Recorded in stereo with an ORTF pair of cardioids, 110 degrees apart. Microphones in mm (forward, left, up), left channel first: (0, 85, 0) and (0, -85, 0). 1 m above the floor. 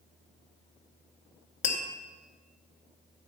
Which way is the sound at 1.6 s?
45° left.